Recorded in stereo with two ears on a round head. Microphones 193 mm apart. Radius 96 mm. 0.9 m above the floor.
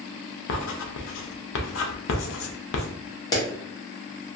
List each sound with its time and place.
0.5 s writing: 65° left (ahead or behind), 0.5 m
3.3 s a clap: 20° left (ahead or behind), 1.0 m